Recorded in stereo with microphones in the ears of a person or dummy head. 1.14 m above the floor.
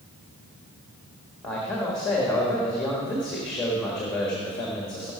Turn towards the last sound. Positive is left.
turn(degrees=5)  # may be behind; listen again after turning